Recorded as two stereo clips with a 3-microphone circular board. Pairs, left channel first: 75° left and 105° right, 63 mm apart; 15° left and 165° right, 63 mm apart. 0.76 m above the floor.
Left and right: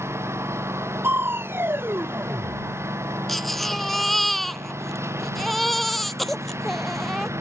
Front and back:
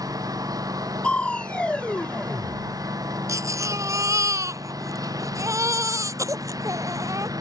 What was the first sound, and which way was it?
A lawn mower, 150° right.